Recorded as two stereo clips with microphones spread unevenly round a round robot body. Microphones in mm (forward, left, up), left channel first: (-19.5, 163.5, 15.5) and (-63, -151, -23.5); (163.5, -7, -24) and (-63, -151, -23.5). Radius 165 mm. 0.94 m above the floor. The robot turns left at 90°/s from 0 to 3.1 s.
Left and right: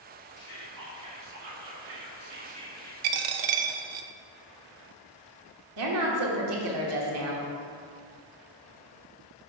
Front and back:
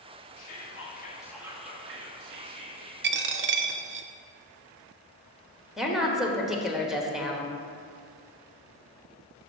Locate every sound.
0.4 s whispering: 35° left, 1.4 m; by 2.9 s 160° left, 1.4 m
3.0 s a dropped coin: 100° right, 0.6 m; by 4.1 s 105° right, 0.6 m
5.8 s a woman speaking: 60° right, 1.2 m